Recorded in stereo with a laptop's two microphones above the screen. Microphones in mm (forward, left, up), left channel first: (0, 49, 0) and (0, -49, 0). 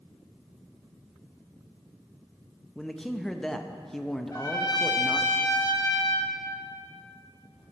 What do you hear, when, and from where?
2.8 s a man speaking: 5° left (ahead or behind), 0.7 m
4.3 s a trumpet: 40° left (ahead or behind), 1.0 m